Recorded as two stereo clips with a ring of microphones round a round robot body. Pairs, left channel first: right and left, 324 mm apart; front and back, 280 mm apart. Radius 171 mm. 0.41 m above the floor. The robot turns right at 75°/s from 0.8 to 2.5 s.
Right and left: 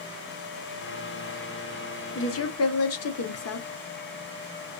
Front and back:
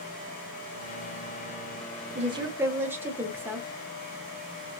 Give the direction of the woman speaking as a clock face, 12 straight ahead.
4 o'clock.